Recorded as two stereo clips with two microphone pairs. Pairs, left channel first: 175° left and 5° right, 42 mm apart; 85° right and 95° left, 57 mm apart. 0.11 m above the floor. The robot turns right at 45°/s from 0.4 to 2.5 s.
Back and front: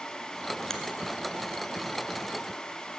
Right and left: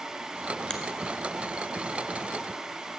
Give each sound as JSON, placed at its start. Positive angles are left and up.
{"t": 0.7, "sound": "a finger snap", "azimuth_deg": -135, "distance_m": 1.0}